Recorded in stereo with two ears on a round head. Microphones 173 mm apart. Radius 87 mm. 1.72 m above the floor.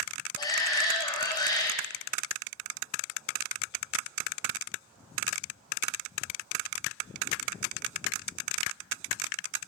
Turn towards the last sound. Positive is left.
turn(degrees=25)  # may be behind; listen again after turning